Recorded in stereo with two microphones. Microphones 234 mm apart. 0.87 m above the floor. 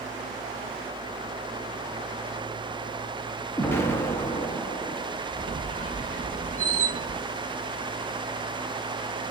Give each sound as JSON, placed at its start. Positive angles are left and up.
{"t": 3.6, "sound": "an explosion", "side_deg": 10, "distance_m": 0.7}
{"t": 5.3, "sound": "a squeak", "side_deg": -35, "distance_m": 1.0}